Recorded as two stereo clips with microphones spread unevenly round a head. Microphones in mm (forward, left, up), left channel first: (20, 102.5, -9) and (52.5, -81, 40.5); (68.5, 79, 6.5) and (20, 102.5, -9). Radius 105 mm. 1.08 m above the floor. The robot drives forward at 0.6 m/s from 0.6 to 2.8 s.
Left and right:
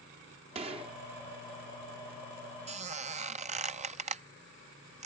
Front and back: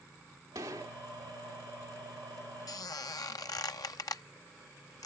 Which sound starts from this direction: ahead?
A squeak, at 2.7 s.